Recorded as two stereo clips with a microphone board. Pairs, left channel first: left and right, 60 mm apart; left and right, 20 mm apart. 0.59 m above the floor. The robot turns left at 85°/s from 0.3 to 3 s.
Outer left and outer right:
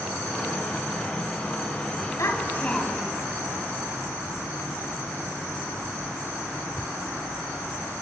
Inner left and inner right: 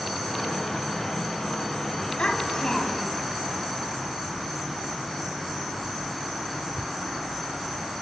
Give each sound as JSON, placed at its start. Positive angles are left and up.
{"t": 2.2, "sound": "a child speaking", "azimuth_deg": 65, "distance_m": 2.5}